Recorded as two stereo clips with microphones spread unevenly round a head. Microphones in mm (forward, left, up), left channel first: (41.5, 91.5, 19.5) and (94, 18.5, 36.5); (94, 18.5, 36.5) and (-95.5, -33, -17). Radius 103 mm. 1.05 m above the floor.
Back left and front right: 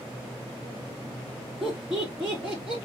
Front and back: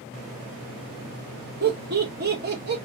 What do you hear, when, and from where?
1.6 s laughter: 140° right, 1.5 m